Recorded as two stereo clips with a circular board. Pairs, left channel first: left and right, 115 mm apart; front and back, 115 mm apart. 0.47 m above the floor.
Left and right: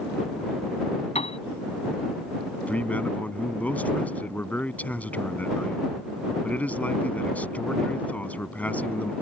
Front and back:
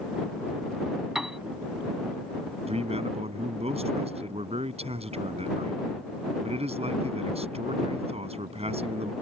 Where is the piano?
95° left.